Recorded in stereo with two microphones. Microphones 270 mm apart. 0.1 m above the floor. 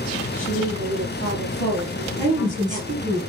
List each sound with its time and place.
0.3 s a woman speaking: 45° left (ahead or behind), 2.5 m
2.2 s a woman speaking: 15° right (ahead or behind), 2.0 m